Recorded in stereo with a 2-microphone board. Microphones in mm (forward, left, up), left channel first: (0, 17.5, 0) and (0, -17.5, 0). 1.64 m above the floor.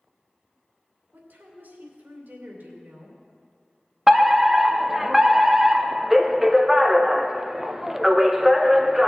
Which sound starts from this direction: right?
A woman speaking, at 1.1 s.